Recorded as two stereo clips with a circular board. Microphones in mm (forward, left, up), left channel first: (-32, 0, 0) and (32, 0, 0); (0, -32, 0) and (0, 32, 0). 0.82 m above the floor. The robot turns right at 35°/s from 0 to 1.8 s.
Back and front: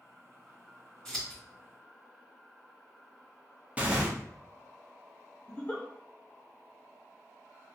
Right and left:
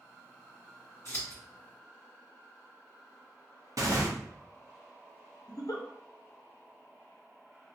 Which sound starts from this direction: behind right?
A giggle, at 5.5 s.